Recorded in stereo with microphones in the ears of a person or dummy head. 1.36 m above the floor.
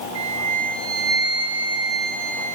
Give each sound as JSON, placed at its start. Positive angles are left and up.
{"t": 0.1, "sound": "a flute", "side_deg": -75, "distance_m": 3.0}